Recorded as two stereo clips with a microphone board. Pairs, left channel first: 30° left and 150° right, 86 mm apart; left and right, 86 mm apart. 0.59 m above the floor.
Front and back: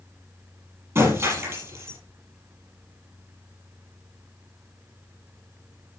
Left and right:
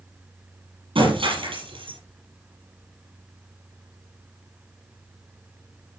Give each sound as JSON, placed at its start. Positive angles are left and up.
{"t": 0.9, "sound": "breaking glass", "azimuth_deg": -95, "distance_m": 6.5}